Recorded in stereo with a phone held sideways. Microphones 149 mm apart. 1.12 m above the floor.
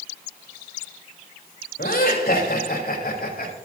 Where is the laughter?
85° left, 5.5 m; by 3.5 s 80° left, 4.5 m.